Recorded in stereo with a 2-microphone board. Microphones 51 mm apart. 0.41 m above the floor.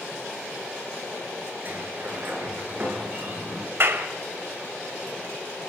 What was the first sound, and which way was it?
A sliding door, 45° right (ahead or behind).